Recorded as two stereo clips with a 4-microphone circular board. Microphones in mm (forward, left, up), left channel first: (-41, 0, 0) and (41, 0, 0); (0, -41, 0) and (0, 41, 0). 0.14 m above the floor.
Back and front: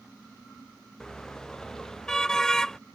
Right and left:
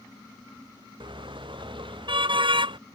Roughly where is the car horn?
Left.